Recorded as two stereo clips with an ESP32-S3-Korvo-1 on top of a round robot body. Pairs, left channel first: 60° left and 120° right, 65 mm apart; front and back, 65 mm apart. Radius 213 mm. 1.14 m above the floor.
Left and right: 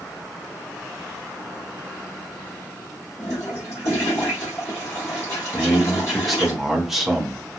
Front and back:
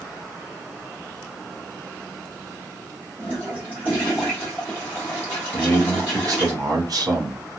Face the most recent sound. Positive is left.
turn(degrees=155)